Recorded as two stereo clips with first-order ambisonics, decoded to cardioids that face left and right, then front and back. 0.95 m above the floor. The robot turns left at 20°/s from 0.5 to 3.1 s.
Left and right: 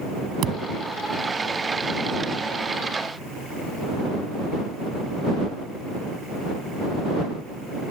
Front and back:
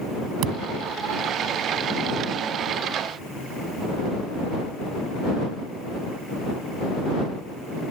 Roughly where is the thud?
Behind right.